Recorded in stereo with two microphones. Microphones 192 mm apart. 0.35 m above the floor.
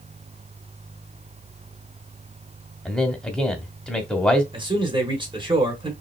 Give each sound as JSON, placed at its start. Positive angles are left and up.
{"t": 2.9, "sound": "a man speaking", "side_deg": 5, "distance_m": 1.0}
{"t": 4.5, "sound": "a man speaking", "side_deg": -25, "distance_m": 1.6}